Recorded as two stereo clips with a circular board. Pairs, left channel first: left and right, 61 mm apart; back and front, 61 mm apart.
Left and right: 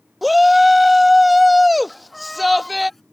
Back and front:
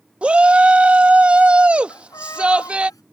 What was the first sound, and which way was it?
A shout, straight ahead.